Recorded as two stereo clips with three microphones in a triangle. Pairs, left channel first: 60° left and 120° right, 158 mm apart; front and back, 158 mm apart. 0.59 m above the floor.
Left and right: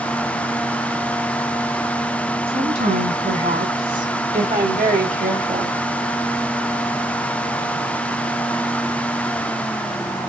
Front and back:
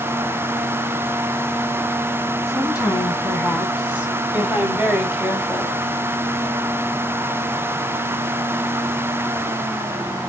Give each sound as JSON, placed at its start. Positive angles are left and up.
{"t": 2.5, "sound": "a woman speaking", "azimuth_deg": -100, "distance_m": 6.0}